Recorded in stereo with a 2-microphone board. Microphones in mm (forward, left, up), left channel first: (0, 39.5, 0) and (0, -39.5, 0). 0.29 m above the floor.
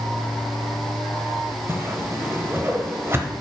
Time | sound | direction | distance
1.7 | a whoosh | 30° right (ahead or behind) | 0.9 m